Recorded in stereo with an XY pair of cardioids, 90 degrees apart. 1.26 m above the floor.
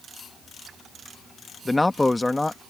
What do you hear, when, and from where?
1.6 s a man speaking: 15° left